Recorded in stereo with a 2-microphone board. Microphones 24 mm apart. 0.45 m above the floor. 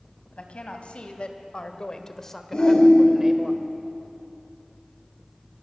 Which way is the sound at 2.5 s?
45° left (ahead or behind).